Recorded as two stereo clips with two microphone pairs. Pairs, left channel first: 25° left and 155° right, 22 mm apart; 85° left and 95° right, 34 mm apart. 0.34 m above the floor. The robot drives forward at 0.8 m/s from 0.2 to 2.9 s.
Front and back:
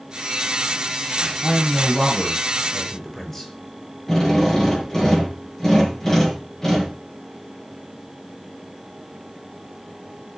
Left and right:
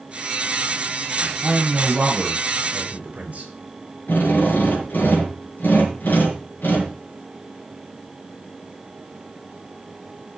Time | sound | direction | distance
1.4 | a man speaking | 40° right | 7 m
4.1 | a drill | 95° left | 4.5 m